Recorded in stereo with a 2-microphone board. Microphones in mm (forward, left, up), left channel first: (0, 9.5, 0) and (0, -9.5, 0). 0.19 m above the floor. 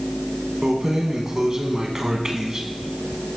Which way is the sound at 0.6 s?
25° right (ahead or behind).